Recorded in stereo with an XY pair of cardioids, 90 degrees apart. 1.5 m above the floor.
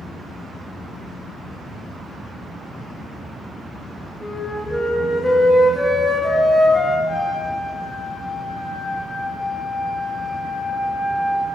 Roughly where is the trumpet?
Ahead left.